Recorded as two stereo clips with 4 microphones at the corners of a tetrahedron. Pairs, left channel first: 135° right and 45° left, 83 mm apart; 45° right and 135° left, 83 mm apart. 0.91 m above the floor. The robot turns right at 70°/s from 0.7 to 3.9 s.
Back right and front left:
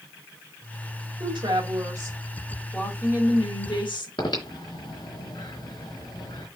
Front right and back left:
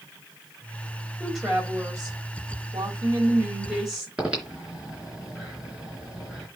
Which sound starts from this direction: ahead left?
A woman speaking, at 1.2 s.